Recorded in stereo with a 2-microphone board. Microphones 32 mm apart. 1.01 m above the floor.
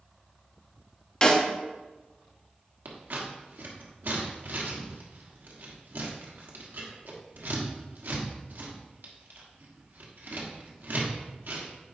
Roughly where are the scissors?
Right.